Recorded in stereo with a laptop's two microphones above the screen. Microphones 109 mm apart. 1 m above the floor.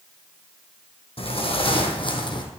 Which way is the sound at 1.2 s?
60° left (ahead or behind).